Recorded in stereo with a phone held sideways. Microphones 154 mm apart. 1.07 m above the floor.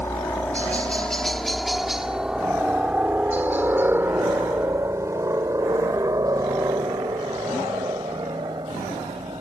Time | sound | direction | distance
0.0 | a helicopter | 15° left (ahead or behind) | ?